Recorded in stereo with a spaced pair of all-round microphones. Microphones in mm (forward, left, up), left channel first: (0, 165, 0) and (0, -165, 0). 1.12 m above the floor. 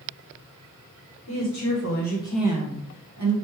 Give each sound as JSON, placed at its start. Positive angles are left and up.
{"t": 1.3, "sound": "a woman speaking", "side_deg": 60, "distance_m": 1.2}